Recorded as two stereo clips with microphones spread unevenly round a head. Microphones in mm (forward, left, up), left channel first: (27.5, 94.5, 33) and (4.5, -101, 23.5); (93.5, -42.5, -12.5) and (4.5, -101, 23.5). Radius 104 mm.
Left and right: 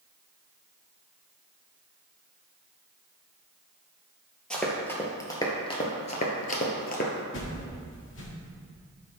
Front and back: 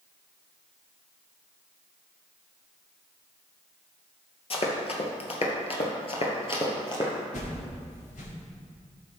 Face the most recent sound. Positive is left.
turn(degrees=60)